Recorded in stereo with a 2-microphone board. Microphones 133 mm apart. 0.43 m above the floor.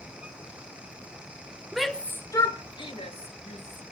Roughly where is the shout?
Centre.